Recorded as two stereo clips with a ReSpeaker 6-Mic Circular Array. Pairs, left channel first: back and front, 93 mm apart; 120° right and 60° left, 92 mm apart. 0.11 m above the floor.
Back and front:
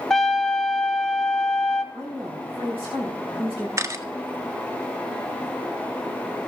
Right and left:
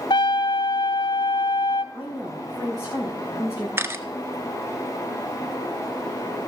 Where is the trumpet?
95° right, 0.6 m.